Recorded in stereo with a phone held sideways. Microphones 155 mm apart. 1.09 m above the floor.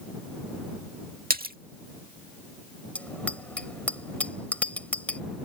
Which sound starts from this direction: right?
A splash, at 1.3 s.